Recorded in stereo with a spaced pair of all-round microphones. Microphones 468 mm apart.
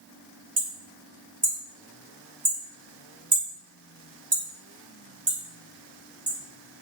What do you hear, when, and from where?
0.6 s hammering: 70° right (ahead or behind), 1.9 m